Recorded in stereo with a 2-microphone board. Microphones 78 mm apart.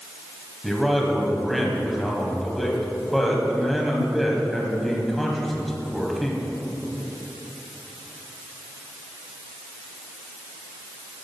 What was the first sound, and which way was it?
A man speaking, centre (ahead or behind).